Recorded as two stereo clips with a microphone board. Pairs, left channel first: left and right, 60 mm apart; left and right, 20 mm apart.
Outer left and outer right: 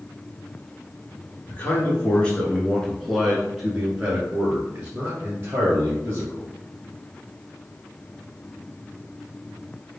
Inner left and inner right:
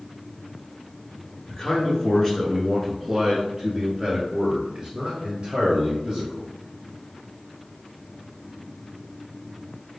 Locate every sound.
1.5 s a man speaking: 25° left (ahead or behind), 1.5 m; by 6.5 s 35° right (ahead or behind), 2 m